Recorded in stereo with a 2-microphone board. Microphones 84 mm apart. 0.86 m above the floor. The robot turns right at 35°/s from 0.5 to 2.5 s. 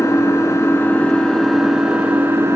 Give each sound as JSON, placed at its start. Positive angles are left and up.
{"t": 0.0, "sound": "an engine running", "azimuth_deg": 145, "distance_m": 3.0}